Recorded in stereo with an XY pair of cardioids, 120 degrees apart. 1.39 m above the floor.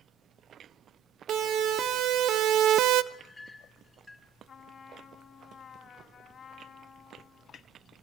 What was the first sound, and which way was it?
A siren, 60° right.